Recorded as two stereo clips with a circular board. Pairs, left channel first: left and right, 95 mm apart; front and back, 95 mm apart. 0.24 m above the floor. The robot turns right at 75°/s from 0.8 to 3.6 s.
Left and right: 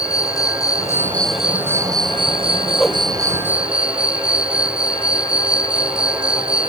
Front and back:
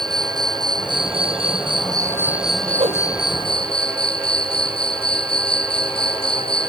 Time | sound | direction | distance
0.0 | an insect | 140° left | ?
2.8 | a whoosh | 175° left | ?